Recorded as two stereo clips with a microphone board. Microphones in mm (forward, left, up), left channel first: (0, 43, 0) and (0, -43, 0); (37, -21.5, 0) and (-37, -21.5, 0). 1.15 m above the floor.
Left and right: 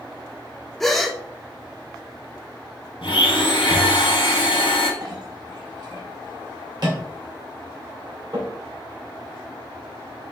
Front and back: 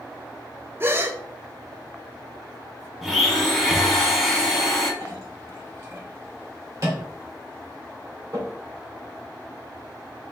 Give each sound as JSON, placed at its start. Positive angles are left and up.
{"t": 0.8, "sound": "a gasp", "azimuth_deg": 175, "distance_m": 0.6}
{"t": 3.0, "sound": "a blender", "azimuth_deg": 90, "distance_m": 1.7}
{"t": 5.0, "sound": "a clink", "azimuth_deg": -130, "distance_m": 2.5}